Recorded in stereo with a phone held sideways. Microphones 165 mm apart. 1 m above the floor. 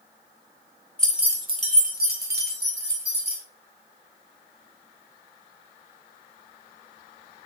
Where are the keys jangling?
5° left (ahead or behind), 0.5 m; by 3.4 s 80° right, 1.3 m.